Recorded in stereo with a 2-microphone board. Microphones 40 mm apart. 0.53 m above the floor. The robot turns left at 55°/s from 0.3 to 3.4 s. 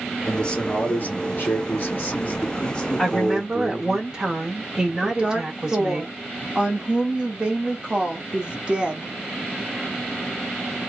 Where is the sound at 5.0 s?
25° right (ahead or behind), 1.0 m.